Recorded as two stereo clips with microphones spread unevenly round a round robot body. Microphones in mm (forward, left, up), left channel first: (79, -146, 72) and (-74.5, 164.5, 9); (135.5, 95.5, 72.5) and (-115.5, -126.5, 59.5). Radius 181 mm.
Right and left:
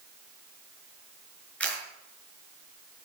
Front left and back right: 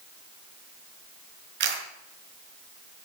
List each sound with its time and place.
1.6 s a camera shutter: 150° right, 5 m